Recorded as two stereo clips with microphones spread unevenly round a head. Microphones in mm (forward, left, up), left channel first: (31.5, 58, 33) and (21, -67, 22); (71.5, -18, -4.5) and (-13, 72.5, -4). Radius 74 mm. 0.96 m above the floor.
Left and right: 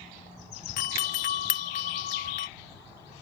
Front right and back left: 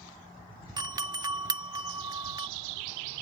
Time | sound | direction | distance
0.8 | a doorbell | 80° left | ?